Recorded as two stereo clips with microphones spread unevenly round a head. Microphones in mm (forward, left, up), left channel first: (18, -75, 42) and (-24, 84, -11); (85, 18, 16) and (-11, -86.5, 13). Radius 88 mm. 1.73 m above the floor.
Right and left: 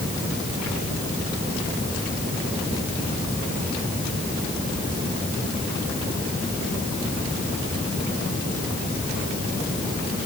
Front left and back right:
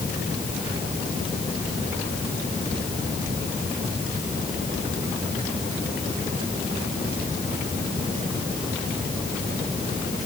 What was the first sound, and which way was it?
Only background noise.